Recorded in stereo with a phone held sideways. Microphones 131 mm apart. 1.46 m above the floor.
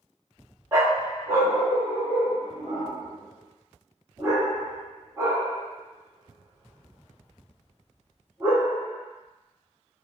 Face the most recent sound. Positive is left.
turn(degrees=-25)  # may be behind; listen again after turning